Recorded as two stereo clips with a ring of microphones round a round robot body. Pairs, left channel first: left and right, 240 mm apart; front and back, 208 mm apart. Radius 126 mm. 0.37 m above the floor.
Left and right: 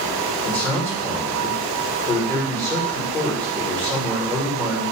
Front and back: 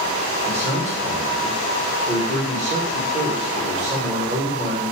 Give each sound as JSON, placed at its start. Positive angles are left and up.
{"t": 0.5, "sound": "a man speaking", "azimuth_deg": 165, "distance_m": 1.2}